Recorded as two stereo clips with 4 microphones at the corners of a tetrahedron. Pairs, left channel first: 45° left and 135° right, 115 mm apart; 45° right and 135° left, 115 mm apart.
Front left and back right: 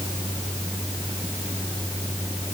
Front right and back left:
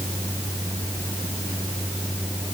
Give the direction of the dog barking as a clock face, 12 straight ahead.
I don't hear a dog barking.